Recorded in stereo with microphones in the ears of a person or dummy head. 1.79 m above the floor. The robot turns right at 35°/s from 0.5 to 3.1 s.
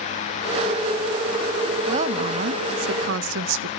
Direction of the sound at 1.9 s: 140° right.